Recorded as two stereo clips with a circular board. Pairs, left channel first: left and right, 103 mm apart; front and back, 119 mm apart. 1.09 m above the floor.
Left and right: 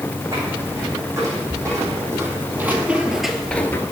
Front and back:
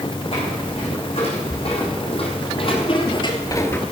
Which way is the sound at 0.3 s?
35° right.